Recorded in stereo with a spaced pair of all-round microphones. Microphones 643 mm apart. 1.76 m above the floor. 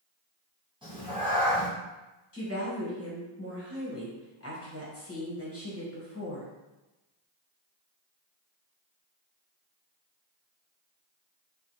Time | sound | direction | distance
0.8 | a cat meowing | 10° right (ahead or behind) | 1.0 m
2.3 | a woman speaking | 20° left (ahead or behind) | 1.3 m